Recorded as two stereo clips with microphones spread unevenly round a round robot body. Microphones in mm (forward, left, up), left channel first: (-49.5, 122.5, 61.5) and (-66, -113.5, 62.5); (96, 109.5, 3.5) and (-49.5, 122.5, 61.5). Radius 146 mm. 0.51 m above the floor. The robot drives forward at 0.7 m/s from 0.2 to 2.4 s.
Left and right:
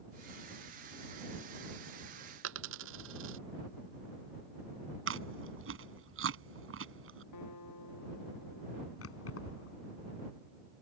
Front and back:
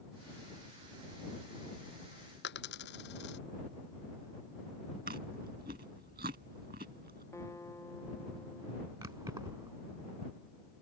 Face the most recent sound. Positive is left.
turn(degrees=110)